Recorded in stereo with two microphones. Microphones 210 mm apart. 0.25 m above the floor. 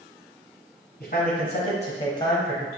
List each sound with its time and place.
1.0 s a man speaking: 45° left (ahead or behind), 1.4 m; by 2.7 s 5° left (ahead or behind), 0.9 m